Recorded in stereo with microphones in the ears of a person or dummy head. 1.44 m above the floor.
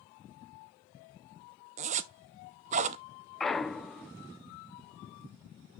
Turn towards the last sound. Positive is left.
turn(degrees=0)  # may be behind; listen again after turning